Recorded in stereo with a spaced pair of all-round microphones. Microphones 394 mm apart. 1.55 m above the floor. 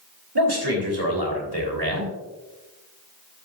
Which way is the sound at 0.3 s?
75° right (ahead or behind).